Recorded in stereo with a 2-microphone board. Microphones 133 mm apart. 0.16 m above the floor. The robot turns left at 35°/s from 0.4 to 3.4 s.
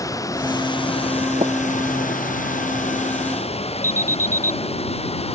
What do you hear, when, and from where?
0.0 s running water: 155° left; by 5.4 s 50° left
1.4 s tapping: 50° right (ahead or behind); by 1.5 s 55° right (ahead or behind)
3.8 s an alarm: 15° left (ahead or behind)